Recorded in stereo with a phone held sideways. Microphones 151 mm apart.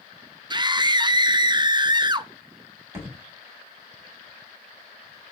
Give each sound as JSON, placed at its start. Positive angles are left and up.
{"t": 0.5, "sound": "a scream", "side_deg": -30, "distance_m": 0.6}
{"t": 2.9, "sound": "a thud", "side_deg": -20, "distance_m": 3.0}